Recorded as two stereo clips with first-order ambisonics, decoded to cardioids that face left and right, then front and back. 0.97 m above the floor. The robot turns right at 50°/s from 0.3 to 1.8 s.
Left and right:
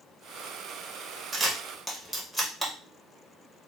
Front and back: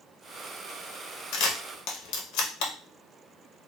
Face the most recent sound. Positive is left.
turn(degrees=5)